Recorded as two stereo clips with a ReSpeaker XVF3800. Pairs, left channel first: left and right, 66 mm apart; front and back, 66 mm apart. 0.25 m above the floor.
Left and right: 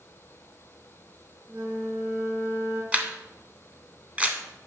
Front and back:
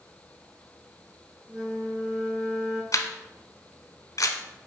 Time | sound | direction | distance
1.5 | a flute | 140° right | 3 m
2.9 | a camera shutter | 20° right | 0.8 m